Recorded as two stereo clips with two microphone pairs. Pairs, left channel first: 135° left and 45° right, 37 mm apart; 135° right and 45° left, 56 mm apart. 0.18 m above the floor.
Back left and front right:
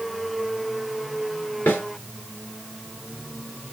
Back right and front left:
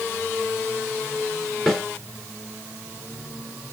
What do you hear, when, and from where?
1.7 s a snare drum: 145° left, 2.5 m